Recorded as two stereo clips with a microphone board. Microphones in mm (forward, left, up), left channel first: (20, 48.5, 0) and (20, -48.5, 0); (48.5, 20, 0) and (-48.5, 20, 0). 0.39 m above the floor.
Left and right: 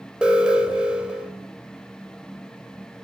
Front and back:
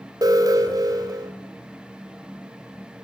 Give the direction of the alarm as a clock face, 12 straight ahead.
5 o'clock.